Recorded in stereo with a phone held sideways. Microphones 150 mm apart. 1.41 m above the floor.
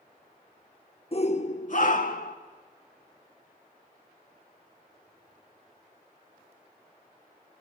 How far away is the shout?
About 1.3 m.